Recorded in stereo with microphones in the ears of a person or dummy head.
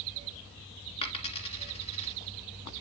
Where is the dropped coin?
30° left (ahead or behind), 1.9 m.